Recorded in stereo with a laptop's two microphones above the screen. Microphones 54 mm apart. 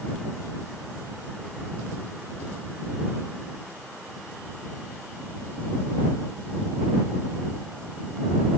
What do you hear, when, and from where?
Only background noise.